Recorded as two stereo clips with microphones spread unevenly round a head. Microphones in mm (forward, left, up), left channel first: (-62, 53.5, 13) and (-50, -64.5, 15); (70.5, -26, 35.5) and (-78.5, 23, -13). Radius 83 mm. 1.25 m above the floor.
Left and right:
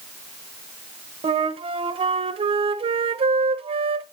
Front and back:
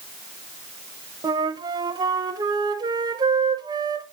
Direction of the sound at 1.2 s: 130° right.